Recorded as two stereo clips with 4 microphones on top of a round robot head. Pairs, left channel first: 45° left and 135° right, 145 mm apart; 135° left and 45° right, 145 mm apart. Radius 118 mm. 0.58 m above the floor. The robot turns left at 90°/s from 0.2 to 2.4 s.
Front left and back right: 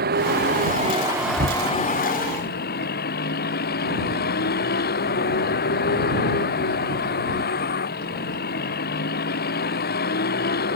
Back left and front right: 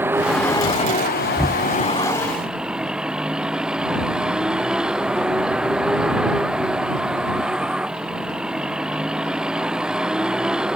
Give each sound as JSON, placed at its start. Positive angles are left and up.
{"t": 0.0, "sound": "a vehicle", "azimuth_deg": -125}
{"t": 1.4, "sound": "knocking", "azimuth_deg": -135}